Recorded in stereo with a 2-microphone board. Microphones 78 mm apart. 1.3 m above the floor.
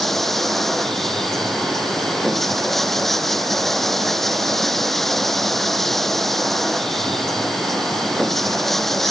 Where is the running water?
5° left (ahead or behind).